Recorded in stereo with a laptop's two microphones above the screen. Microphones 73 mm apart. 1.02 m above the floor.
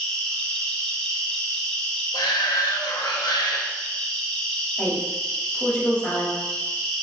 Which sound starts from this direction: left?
A shout, at 2.1 s.